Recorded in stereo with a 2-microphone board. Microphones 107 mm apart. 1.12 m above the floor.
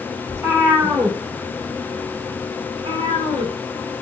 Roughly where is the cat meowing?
Right.